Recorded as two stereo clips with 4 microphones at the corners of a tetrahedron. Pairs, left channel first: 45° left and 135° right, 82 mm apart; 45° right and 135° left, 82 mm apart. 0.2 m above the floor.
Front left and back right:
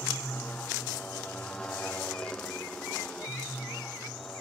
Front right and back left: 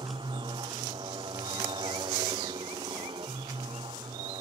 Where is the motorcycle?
120° left; by 4.4 s 125° left.